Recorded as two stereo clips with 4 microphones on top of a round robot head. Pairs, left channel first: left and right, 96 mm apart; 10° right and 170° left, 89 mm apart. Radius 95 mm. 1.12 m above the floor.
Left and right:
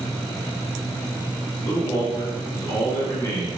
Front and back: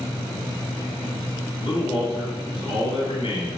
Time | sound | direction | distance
1.6 | a man speaking | 20° left | 1.7 m